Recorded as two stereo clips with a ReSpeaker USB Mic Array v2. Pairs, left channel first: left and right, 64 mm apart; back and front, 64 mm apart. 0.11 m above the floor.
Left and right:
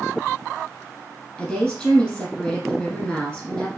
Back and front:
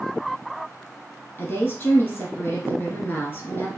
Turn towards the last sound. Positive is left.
turn(degrees=150)